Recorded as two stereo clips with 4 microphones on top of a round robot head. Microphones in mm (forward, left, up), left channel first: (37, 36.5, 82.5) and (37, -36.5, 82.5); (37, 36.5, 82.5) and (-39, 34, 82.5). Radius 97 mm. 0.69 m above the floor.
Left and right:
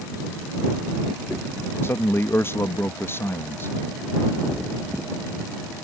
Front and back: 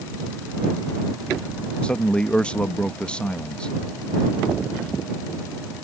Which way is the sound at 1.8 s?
70° left.